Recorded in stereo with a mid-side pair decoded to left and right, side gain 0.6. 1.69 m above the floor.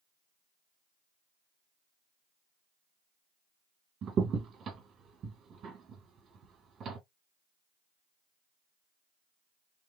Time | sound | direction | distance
4.0 | a crack | 45° right | 1.9 m